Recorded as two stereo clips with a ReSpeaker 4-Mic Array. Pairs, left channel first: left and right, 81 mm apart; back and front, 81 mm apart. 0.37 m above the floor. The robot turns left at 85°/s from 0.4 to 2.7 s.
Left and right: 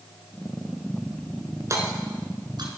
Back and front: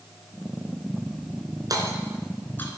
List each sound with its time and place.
1.7 s hammering: 40° right, 2.5 m; by 2.8 s 125° right, 2.5 m